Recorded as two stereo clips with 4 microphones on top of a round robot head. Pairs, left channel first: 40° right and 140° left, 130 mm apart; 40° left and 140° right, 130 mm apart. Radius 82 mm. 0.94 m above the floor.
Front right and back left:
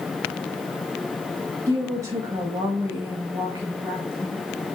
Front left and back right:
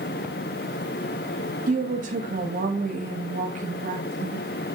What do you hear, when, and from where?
1.7 s a woman speaking: 155° right, 1.2 m